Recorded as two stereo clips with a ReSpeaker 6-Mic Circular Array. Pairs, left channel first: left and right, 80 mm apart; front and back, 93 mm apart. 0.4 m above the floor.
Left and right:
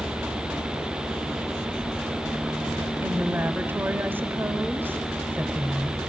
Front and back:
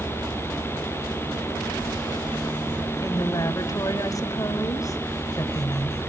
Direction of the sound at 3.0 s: 35° right.